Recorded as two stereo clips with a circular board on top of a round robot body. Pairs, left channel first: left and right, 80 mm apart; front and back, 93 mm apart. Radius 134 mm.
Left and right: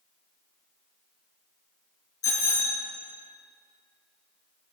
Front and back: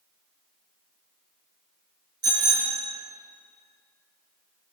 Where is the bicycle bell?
135° left, 4.5 m.